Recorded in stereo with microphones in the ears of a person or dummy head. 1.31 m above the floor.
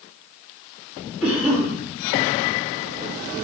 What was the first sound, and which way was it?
A cough, centre (ahead or behind).